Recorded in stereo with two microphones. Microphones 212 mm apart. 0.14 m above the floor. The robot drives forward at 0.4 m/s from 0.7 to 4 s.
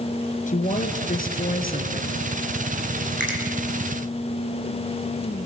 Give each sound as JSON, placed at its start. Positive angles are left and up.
{"t": 0.5, "sound": "a woman speaking", "side_deg": 40, "distance_m": 2.0}
{"t": 3.2, "sound": "a finger snap", "side_deg": 60, "distance_m": 4.5}